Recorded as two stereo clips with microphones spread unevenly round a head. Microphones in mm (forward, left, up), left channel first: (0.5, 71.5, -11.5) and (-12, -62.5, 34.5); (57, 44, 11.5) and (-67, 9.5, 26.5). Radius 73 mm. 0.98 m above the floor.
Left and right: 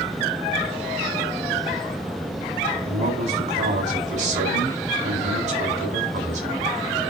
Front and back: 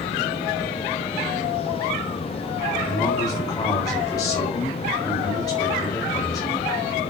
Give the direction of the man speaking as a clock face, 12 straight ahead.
2 o'clock.